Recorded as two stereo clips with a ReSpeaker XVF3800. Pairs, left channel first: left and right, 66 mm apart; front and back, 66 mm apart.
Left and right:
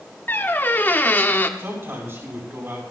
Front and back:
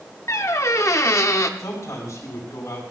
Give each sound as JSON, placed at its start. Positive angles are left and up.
{"t": 0.3, "sound": "a squeak", "azimuth_deg": 30, "distance_m": 1.0}
{"t": 1.6, "sound": "a man speaking", "azimuth_deg": -40, "distance_m": 6.0}